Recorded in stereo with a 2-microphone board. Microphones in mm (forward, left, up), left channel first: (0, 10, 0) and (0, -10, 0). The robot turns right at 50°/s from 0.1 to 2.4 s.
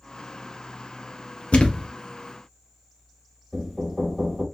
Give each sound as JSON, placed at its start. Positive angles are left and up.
{"t": 1.5, "sound": "a thud", "side_deg": 75, "distance_m": 0.8}
{"t": 3.5, "sound": "knocking", "side_deg": 10, "distance_m": 1.6}